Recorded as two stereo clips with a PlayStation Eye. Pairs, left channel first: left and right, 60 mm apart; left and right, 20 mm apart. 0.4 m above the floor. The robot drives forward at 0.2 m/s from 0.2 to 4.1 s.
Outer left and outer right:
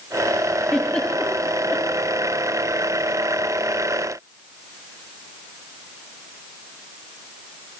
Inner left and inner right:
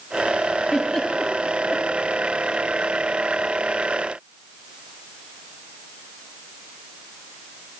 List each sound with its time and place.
0.7 s a giggle: 20° left (ahead or behind), 8.5 m